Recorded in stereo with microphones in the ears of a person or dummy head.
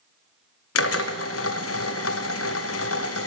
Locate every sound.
0.8 s a drill: 80° left, 0.6 m